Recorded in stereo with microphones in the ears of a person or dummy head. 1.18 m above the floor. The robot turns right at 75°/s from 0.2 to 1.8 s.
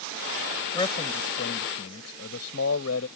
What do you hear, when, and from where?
0.7 s a man speaking: 20° left; by 3.1 s 105° left